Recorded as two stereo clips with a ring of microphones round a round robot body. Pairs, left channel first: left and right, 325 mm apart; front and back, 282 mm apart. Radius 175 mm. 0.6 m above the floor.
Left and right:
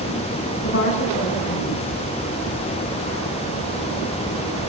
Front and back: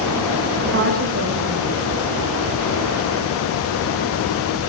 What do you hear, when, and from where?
0.6 s a woman speaking: 140° left, 7 m